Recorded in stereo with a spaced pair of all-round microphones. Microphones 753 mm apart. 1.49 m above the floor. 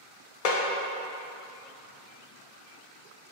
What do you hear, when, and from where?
0.5 s a snare drum: 55° left (ahead or behind), 0.6 m